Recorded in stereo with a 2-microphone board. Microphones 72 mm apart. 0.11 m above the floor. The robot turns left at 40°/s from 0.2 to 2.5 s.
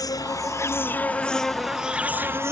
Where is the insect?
55° left; by 2.5 s 35° right.